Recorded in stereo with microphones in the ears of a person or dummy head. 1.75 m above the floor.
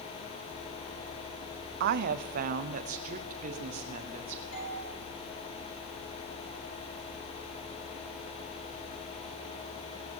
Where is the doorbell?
85° left, 9 m.